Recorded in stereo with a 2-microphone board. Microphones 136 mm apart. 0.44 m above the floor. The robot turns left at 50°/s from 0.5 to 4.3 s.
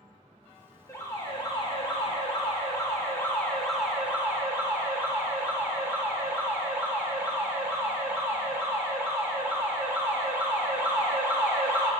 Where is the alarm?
145° left, 1.2 m; by 11.9 s 25° right, 1.2 m.